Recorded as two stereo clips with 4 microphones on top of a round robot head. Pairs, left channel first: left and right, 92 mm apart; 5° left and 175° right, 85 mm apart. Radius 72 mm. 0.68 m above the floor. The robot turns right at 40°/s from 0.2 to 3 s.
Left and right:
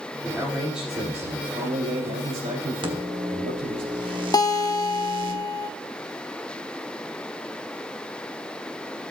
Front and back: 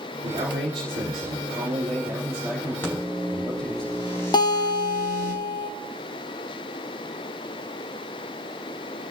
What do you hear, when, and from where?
0.2 s a man speaking: 170° left, 3.5 m; by 3.8 s 75° right, 3.5 m
2.8 s a microwave: 70° right, 1.4 m; by 5.3 s 60° right, 1.4 m
4.3 s a guitar: 40° left, 0.7 m